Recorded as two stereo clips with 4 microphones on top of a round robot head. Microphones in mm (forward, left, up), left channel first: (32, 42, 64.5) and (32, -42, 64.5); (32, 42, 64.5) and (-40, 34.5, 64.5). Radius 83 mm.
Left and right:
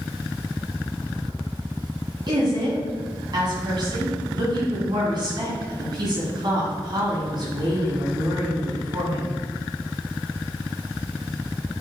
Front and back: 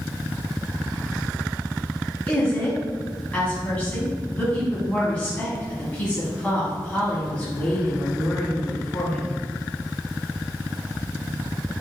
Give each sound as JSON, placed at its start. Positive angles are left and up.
{"t": 2.3, "sound": "a woman speaking", "azimuth_deg": -70, "distance_m": 1.9}